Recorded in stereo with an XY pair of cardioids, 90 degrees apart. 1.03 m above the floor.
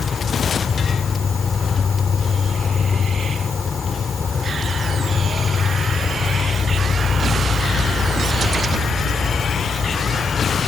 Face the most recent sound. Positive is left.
turn(degrees=45)